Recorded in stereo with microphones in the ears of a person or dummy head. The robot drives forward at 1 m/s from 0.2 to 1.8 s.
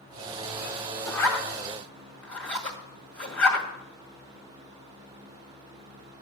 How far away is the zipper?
About 1.0 m.